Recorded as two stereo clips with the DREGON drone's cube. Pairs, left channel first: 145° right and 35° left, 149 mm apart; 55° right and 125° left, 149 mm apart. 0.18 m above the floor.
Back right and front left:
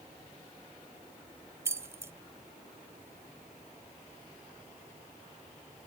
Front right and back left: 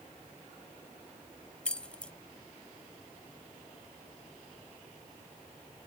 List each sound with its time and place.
1.6 s keys jangling: 15° left